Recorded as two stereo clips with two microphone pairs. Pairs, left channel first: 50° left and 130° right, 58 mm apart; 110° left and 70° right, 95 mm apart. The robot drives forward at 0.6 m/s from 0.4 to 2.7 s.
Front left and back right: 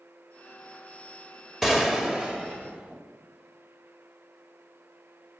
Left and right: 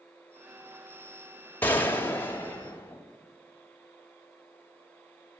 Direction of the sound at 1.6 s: 150° left.